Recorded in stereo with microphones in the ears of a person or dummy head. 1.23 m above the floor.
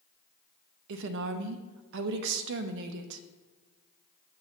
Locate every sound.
0.9 s a woman speaking: 60° right (ahead or behind), 0.6 m